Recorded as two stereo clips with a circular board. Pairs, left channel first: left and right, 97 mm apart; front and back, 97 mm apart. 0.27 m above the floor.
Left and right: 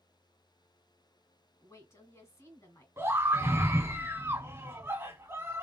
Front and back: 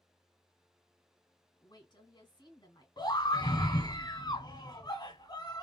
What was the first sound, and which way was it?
A woman speaking, 35° left.